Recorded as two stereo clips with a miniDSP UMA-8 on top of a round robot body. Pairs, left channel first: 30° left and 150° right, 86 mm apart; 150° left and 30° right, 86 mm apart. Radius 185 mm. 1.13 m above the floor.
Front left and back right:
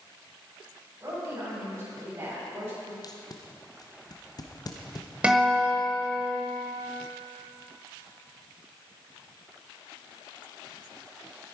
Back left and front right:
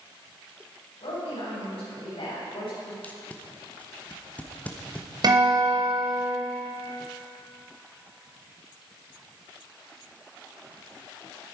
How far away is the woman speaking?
About 7.5 m.